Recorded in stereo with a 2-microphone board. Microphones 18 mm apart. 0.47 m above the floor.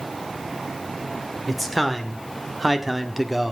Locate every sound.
1.5 s a man speaking: 5° left (ahead or behind), 1.9 m; by 3.5 s 15° right (ahead or behind), 1.4 m